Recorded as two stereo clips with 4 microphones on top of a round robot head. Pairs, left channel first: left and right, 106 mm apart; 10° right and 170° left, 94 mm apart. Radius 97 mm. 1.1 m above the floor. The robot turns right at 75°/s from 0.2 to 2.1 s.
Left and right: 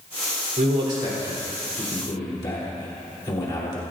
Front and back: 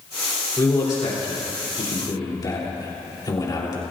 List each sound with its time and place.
0.6 s a man speaking: 80° right, 3.5 m; by 3.8 s 35° left, 3.5 m